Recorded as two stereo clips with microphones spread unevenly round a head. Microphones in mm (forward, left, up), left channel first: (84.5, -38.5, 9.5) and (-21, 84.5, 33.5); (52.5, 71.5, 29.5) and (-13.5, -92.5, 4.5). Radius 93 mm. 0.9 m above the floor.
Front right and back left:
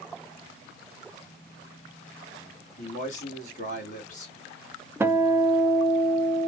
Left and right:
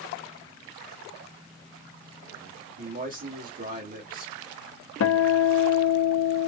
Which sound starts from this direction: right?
A man speaking, at 2.8 s.